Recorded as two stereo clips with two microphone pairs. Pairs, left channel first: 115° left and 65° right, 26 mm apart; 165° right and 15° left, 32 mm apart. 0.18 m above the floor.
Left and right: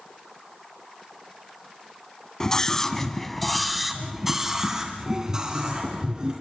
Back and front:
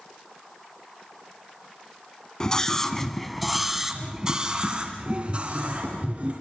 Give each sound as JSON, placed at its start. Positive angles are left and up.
{"t": 2.4, "sound": "a scream", "azimuth_deg": 155, "distance_m": 1.8}